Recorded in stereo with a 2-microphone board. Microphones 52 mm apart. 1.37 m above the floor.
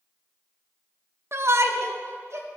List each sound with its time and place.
1.3 s a shout: 55° right (ahead or behind), 0.8 m; by 2.5 s 65° right (ahead or behind), 1.6 m